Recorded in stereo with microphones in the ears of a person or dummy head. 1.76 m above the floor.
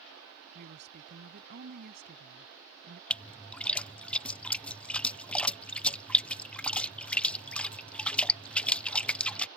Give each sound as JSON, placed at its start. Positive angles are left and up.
{"t": 0.6, "sound": "a woman speaking", "side_deg": -55}
{"t": 3.1, "sound": "a splash", "side_deg": 0}